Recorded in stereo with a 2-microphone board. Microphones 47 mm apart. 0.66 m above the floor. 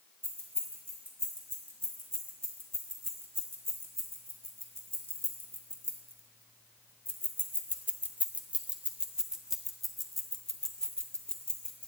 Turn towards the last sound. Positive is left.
turn(degrees=25)  # may be behind; listen again after turning